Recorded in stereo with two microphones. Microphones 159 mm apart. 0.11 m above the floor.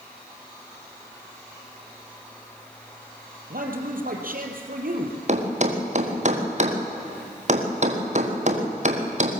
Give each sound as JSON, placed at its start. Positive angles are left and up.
{"t": 3.5, "sound": "a man speaking", "side_deg": -65, "distance_m": 3.0}
{"t": 5.3, "sound": "a thud", "side_deg": -45, "distance_m": 2.5}